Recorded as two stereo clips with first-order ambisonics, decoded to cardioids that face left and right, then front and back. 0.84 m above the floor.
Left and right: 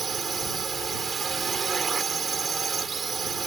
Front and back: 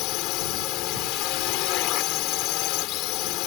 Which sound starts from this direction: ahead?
A drone, at 0.0 s.